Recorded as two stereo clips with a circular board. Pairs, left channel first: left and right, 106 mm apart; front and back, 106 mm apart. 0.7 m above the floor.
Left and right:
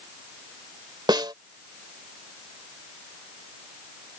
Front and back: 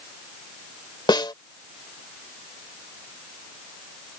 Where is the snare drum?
45° right.